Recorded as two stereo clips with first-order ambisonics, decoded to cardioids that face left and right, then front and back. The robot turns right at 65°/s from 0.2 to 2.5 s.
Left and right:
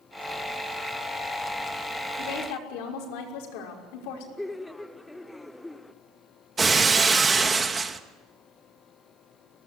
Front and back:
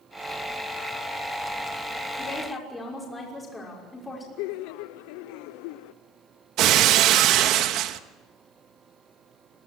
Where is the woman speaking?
60° left, 5.5 m; by 4.3 s 80° left, 5.5 m.